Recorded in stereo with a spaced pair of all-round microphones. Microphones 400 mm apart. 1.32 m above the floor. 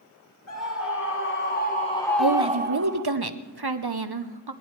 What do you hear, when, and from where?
0.5 s a scream: 40° left (ahead or behind), 1.4 m; by 3.0 s 50° right (ahead or behind), 0.6 m
2.2 s a woman speaking: 70° right (ahead or behind), 0.9 m